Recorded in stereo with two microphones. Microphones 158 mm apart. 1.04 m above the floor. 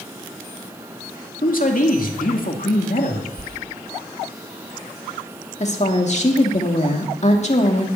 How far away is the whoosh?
About 1.3 m.